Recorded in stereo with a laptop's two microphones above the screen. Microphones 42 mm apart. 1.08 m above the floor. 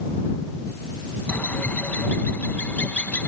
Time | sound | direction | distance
1.3 | a bird | 45° left (ahead or behind) | ?